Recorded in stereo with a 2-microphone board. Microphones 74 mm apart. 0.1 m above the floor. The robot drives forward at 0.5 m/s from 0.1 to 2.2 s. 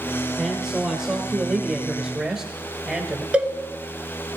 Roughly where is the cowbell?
Centre.